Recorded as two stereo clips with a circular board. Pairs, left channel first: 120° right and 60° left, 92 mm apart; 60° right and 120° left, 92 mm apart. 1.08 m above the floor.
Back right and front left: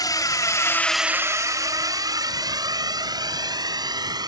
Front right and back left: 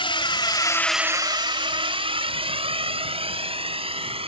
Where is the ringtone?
No ringtone in this recording.